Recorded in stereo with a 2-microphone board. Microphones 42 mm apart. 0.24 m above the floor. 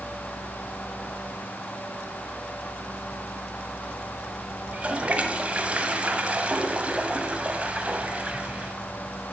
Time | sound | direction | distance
4.7 | a toilet flushing | 30° right (ahead or behind) | 0.9 m